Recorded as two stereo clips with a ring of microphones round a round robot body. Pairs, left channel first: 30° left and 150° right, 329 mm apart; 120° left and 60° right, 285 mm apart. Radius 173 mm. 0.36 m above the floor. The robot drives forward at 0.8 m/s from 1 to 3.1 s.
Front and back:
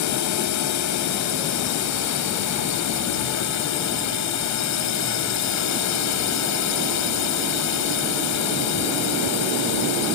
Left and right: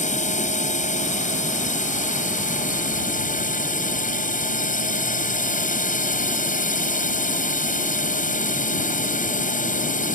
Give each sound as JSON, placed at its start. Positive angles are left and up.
{"t": 0.0, "sound": "a drone", "azimuth_deg": 60}